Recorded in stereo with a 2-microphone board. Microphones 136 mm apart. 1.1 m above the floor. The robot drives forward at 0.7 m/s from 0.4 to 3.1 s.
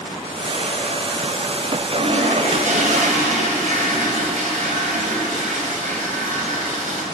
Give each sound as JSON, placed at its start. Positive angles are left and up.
{"t": 2.0, "sound": "a toilet flushing", "side_deg": -85, "distance_m": 5.0}